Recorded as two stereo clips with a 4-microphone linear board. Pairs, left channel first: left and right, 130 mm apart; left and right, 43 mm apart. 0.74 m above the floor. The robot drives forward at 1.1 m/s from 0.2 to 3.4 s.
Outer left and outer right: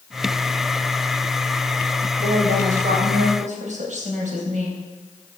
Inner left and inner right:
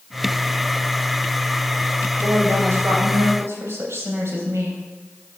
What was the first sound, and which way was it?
A woman speaking, 80° right.